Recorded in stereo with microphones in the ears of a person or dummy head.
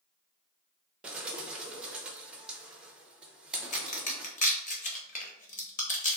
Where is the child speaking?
I don't hear a child speaking.